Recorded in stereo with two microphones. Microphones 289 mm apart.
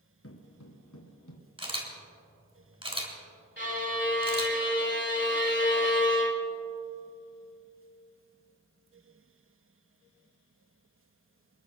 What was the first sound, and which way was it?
Footsteps, 50° left (ahead or behind).